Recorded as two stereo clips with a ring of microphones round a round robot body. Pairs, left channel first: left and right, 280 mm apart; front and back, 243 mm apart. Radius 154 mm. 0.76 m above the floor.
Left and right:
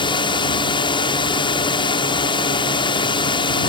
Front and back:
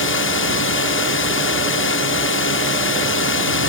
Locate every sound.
0.0 s a drone: 20° left